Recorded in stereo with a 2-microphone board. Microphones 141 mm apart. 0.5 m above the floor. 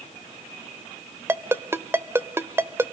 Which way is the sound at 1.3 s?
15° right (ahead or behind).